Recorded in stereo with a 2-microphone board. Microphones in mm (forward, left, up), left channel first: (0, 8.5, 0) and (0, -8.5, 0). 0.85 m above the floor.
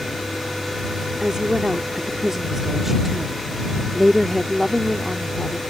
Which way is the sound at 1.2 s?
45° right (ahead or behind).